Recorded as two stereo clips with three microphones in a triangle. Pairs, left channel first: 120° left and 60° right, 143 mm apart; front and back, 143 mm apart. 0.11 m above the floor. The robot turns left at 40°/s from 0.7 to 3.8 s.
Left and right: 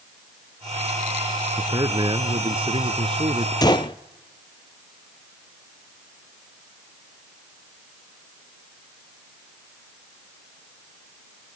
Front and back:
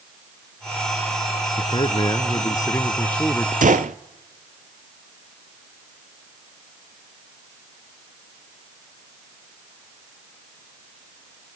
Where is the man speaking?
15° right, 1.3 m; by 3.5 s 90° right, 1.3 m.